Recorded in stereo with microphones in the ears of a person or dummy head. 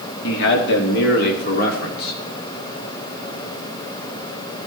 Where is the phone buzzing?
No phone buzzing in this recording.